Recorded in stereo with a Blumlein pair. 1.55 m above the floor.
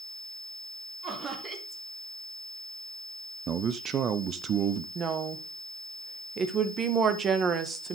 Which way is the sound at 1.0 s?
25° right.